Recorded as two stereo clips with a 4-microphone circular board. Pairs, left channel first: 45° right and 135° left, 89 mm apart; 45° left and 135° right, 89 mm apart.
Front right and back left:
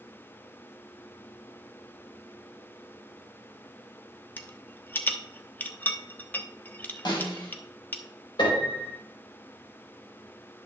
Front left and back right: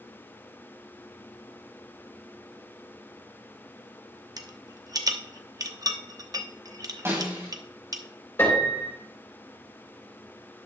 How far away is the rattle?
About 0.9 m.